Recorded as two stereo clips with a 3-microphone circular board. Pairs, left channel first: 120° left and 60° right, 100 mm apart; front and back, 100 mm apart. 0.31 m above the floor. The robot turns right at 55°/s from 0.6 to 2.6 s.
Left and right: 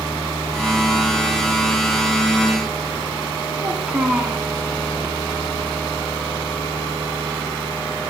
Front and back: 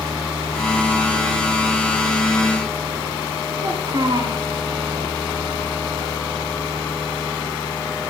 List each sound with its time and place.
3.6 s a child speaking: 140° right, 1.9 m